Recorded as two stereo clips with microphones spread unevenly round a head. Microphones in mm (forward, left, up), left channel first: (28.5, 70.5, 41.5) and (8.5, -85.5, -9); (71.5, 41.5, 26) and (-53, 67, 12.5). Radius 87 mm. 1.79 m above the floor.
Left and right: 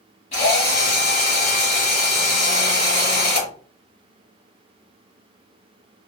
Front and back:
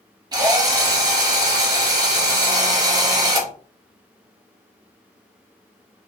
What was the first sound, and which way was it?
A drill, 115° left.